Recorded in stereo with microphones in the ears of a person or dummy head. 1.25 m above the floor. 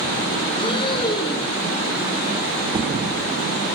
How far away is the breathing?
About 1.8 m.